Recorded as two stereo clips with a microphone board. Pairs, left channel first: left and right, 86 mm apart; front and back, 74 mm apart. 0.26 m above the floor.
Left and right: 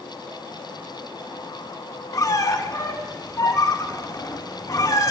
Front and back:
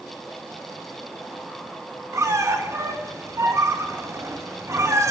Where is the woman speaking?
No woman speaking in this recording.